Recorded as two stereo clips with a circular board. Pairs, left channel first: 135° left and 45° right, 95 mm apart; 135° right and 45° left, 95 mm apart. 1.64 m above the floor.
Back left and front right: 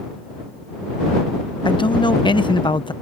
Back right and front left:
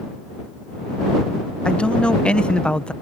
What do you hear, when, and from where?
1.6 s a man speaking: 145° left